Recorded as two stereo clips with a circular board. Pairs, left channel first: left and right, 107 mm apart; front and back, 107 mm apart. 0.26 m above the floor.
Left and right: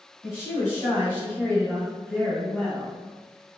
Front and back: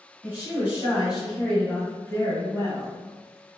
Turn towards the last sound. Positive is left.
turn(degrees=0)